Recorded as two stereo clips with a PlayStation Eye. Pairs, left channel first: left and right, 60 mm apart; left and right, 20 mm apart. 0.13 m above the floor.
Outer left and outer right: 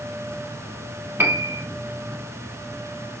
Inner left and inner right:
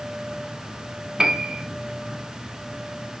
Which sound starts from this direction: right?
A piano, at 1.2 s.